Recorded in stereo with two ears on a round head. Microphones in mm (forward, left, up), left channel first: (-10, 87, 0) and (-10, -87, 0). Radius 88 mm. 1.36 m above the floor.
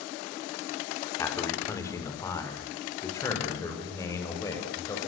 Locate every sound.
1.2 s a man speaking: 15° left (ahead or behind), 4.5 m; by 5.0 s 20° left (ahead or behind), 7.5 m